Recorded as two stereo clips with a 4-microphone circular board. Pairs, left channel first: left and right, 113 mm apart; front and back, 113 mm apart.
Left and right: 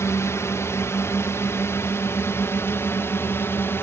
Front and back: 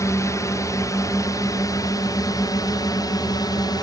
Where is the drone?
40° left; by 3.8 s 30° left.